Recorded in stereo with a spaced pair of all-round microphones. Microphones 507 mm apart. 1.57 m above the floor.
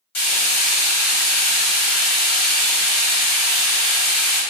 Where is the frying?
70° left (ahead or behind), 1.1 m.